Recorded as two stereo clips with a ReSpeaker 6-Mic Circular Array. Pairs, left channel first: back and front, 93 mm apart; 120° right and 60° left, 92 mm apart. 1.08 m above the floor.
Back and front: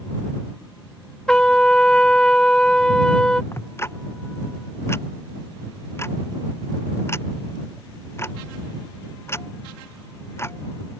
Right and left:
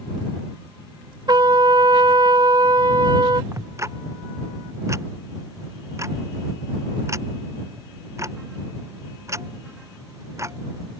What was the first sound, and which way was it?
A trumpet, 100° left.